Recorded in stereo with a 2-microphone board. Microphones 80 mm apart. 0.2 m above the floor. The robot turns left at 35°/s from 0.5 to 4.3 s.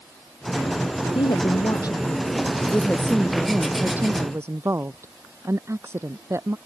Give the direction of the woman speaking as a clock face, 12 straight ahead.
9 o'clock.